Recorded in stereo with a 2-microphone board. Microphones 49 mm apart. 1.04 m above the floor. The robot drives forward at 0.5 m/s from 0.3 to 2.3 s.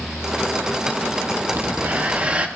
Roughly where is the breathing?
Right.